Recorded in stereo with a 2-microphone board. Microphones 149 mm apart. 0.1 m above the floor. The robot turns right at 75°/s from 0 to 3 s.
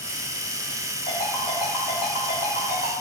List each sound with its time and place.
1.1 s a ringtone: 45° left (ahead or behind), 1.5 m; by 2.9 s 75° right (ahead or behind), 1.5 m